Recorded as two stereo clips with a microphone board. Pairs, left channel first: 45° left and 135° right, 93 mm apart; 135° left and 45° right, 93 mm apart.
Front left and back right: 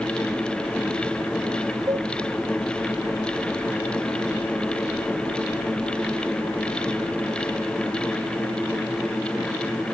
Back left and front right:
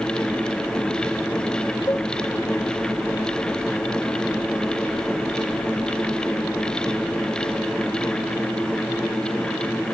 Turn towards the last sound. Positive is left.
turn(degrees=-175)